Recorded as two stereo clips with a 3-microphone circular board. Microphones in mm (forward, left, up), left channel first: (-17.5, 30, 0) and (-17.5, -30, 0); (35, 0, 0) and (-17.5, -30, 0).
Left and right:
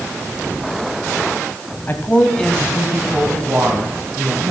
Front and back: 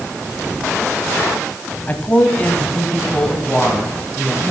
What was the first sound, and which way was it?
A woman speaking, 70° left.